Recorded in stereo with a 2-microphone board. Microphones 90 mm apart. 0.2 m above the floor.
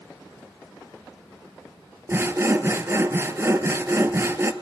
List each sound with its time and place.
2.1 s sawing: 30° right (ahead or behind), 0.6 m